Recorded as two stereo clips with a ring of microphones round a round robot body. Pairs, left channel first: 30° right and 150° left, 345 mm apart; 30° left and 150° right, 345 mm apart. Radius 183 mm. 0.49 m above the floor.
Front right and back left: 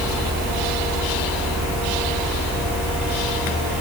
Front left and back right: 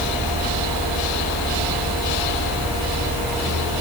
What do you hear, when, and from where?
Only background noise.